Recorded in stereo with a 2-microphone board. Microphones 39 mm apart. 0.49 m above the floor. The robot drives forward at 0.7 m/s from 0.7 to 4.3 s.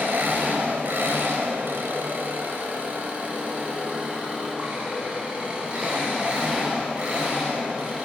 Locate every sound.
0.0 s an engine running: 65° right (ahead or behind), 1.4 m; by 8.1 s 30° right (ahead or behind), 2.5 m